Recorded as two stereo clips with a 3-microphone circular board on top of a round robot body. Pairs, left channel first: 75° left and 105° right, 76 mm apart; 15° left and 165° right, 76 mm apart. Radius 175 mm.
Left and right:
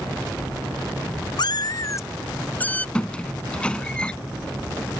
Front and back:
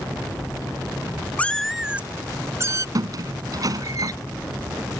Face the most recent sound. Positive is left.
turn(degrees=155)